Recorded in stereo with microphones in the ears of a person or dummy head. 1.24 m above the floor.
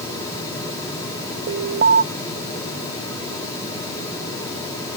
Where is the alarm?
45° right (ahead or behind).